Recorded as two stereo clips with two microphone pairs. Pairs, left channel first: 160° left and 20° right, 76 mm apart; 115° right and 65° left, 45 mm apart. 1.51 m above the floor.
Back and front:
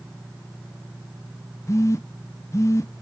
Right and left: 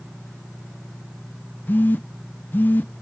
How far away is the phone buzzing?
About 0.5 m.